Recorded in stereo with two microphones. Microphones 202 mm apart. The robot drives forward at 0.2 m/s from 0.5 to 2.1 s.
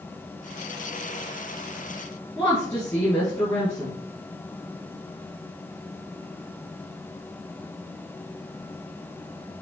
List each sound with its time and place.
2.4 s a woman speaking: 20° left (ahead or behind), 1.7 m